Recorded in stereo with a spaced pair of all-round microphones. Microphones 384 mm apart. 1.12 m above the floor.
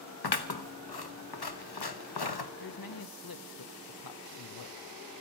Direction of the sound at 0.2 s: 75° left (ahead or behind).